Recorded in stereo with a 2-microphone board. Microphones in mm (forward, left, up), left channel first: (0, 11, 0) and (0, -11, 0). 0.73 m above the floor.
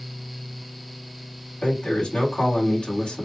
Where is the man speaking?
55° left (ahead or behind), 2 m.